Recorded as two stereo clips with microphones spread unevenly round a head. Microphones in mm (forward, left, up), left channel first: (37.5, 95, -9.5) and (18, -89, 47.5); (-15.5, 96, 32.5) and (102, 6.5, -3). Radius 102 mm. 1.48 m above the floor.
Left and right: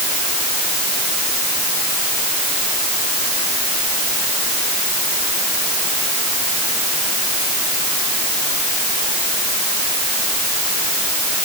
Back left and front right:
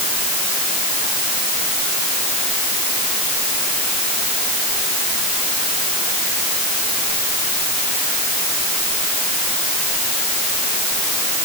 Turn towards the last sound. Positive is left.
No sound to turn to.